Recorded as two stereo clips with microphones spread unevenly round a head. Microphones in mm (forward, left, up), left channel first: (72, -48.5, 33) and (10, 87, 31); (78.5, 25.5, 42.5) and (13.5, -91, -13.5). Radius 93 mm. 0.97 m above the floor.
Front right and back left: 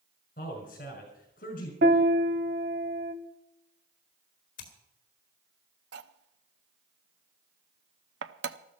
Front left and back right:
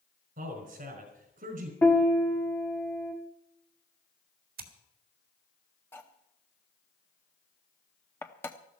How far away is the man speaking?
About 5 m.